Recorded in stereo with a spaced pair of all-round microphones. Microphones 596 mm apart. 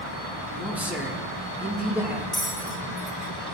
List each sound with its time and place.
0.5 s a man speaking: 5° right (ahead or behind), 1.9 m
2.3 s a bell: 25° left (ahead or behind), 2 m